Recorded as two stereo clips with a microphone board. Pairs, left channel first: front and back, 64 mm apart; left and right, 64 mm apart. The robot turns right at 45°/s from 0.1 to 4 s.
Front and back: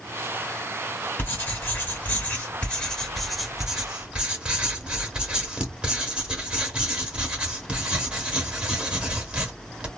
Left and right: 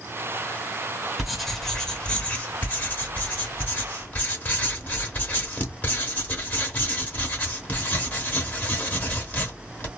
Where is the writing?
5° right, 0.7 m; by 9.9 s 120° left, 0.7 m.